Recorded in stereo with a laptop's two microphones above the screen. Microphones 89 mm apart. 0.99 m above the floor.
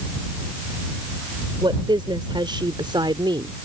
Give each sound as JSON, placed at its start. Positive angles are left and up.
{"t": 1.6, "sound": "a woman speaking", "side_deg": -60}